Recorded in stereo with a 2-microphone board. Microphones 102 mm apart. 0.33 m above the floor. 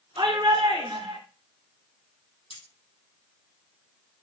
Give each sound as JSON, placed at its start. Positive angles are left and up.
{"t": 0.2, "sound": "a shout", "side_deg": -60, "distance_m": 4.0}
{"t": 2.5, "sound": "cutlery clinking", "side_deg": 85, "distance_m": 7.5}